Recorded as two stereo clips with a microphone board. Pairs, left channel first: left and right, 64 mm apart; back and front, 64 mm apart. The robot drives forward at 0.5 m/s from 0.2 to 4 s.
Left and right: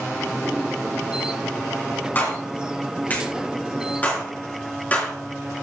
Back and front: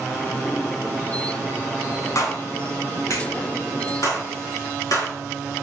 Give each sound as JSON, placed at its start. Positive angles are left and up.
{"t": 2.1, "sound": "a clap", "azimuth_deg": 145, "distance_m": 3.0}